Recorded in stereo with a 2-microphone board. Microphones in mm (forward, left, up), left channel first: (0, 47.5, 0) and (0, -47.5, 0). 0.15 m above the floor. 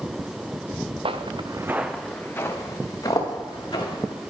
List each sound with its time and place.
1.1 s footsteps: 75° right (ahead or behind), 0.9 m; by 4.3 s 45° left (ahead or behind), 3 m